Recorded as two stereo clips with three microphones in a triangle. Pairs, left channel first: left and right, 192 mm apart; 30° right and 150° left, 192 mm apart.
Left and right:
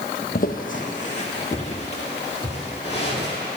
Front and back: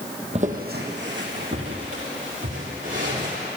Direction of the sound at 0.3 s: 105° left.